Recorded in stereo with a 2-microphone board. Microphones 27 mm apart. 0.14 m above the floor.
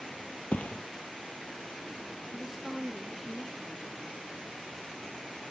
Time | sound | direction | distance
0.5 | a thud | 70° left (ahead or behind) | ?
2.3 | a woman speaking | 10° right (ahead or behind) | ?